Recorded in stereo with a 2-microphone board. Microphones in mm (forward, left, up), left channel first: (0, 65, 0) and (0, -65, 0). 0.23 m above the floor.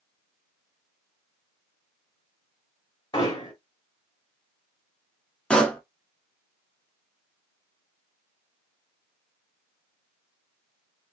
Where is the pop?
10° left (ahead or behind), 0.7 m.